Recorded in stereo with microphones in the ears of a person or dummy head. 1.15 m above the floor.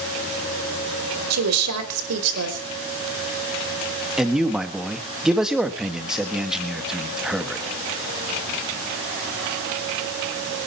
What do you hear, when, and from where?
1.3 s a woman speaking: 90° right, 4 m
4.2 s a man speaking: centre (ahead or behind), 1.6 m